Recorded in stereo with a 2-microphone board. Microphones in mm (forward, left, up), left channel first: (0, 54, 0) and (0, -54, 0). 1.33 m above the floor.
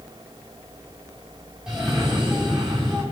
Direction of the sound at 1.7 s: 5° right (ahead or behind).